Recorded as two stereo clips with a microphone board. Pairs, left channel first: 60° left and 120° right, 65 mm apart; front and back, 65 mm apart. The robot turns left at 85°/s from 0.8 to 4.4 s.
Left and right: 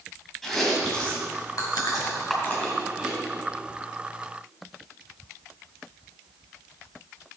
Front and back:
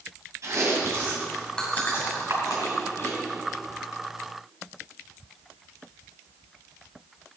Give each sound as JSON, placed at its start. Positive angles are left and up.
{"t": 0.4, "sound": "chewing", "azimuth_deg": 145, "distance_m": 3.0}
{"t": 2.3, "sound": "a camera shutter", "azimuth_deg": 150, "distance_m": 4.0}